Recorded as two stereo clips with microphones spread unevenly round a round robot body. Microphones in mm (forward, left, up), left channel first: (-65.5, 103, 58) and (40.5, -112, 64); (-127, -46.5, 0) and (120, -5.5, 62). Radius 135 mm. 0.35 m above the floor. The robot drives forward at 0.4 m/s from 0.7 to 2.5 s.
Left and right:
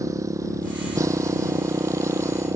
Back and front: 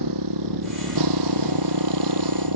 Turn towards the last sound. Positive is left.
turn(degrees=15)